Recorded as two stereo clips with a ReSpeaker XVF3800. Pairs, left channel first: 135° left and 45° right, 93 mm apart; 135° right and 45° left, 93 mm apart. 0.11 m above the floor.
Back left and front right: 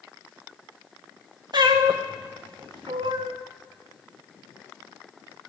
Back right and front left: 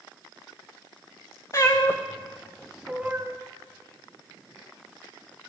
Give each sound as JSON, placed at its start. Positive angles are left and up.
{"t": 1.5, "sound": "a cat meowing", "azimuth_deg": -80, "distance_m": 1.6}